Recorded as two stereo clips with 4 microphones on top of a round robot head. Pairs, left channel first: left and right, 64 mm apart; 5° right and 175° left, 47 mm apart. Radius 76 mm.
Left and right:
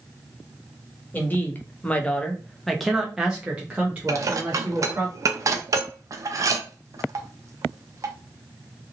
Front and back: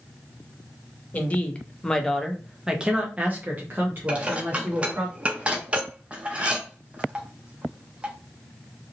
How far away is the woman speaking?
About 1.0 m.